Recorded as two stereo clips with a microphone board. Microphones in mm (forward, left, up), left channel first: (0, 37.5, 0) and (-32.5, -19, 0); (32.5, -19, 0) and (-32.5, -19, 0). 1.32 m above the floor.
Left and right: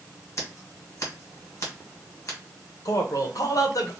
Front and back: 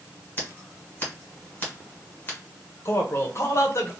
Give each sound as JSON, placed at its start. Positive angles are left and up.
{"t": 0.4, "sound": "scissors", "azimuth_deg": 50, "distance_m": 1.4}
{"t": 2.9, "sound": "a man speaking", "azimuth_deg": 40, "distance_m": 0.8}